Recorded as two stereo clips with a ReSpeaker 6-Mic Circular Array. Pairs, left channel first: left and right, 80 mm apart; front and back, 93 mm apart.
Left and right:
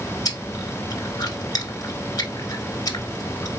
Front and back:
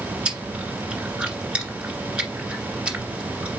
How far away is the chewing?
About 1.6 m.